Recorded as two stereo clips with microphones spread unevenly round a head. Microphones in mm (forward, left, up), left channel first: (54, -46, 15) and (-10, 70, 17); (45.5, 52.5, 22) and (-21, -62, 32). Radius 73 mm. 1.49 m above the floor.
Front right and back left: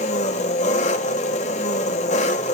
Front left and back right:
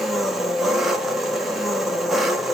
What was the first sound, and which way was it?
An engine running, 35° right.